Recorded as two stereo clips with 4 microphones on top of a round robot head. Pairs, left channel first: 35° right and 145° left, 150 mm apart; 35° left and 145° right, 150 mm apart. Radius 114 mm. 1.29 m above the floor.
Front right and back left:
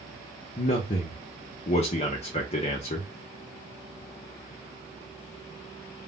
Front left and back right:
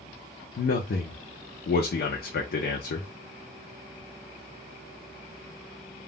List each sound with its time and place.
0.6 s a man speaking: 15° left, 0.5 m